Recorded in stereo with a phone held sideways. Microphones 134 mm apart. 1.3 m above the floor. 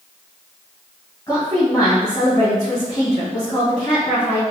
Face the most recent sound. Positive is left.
turn(degrees=30)  # may be behind; listen again after turning